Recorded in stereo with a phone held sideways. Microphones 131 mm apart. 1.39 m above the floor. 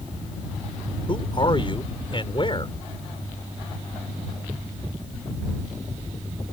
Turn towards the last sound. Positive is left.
turn(degrees=40)  # may be behind; listen again after turning